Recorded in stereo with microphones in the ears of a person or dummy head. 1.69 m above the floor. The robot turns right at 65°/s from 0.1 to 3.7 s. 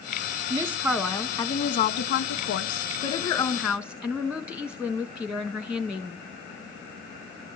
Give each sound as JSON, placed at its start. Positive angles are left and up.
{"t": 0.5, "sound": "a woman speaking", "azimuth_deg": -30, "distance_m": 1.5}